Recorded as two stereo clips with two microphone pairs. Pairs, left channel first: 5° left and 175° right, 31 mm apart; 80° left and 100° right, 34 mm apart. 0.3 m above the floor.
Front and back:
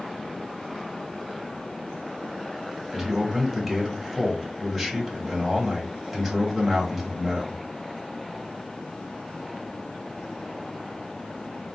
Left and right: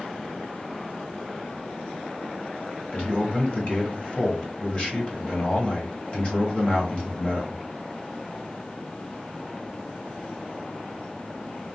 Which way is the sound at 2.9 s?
100° left.